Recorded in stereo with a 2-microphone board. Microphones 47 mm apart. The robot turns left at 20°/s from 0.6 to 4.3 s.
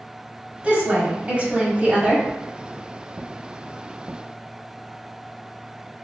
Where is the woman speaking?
25° right (ahead or behind), 1.1 m.